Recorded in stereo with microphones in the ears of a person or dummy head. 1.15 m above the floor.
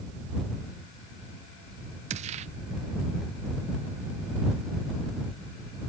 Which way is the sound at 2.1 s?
40° right (ahead or behind).